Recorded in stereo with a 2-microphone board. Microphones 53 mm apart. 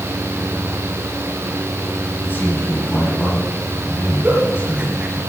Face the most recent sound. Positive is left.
turn(degrees=-30)  # may be behind; listen again after turning